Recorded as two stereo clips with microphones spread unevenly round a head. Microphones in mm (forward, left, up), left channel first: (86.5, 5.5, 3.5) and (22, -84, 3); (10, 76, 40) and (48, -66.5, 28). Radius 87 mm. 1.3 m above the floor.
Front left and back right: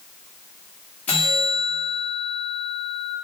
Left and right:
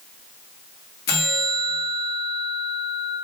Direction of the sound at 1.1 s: 135° left.